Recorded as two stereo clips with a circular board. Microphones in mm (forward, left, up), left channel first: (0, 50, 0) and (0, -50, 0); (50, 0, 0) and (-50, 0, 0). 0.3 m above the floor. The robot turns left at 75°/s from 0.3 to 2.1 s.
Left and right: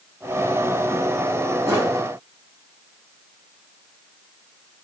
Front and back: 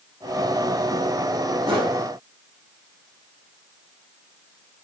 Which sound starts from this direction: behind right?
A whoosh, at 1.7 s.